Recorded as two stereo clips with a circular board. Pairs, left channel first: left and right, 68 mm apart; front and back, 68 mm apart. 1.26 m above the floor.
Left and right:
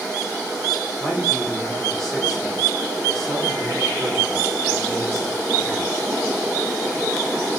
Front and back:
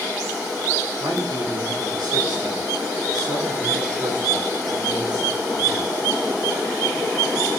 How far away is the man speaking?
About 3 m.